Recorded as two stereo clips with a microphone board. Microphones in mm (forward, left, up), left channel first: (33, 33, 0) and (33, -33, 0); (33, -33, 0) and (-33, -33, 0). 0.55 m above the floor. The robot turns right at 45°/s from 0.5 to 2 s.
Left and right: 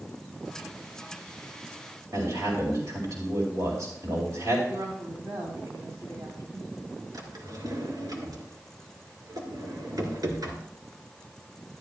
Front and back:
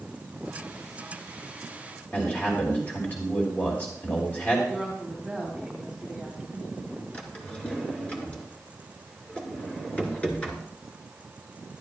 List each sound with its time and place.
2.1 s a man speaking: 60° right, 2.5 m
4.7 s a woman speaking: 85° right, 2.5 m
7.1 s a drawer: 70° right, 1.9 m